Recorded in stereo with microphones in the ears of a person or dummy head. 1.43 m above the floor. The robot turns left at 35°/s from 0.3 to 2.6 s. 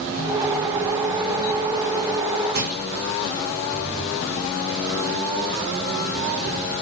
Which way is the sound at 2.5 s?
55° right (ahead or behind).